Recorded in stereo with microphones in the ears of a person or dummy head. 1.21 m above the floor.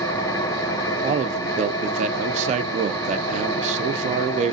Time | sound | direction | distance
0.0 | an engine running | 20° left (ahead or behind) | 0.9 m
1.0 | a man speaking | 40° right (ahead or behind) | 0.7 m